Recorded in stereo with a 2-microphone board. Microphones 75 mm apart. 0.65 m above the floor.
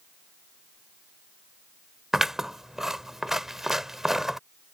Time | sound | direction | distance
2.1 | scissors | 5° right (ahead or behind) | ?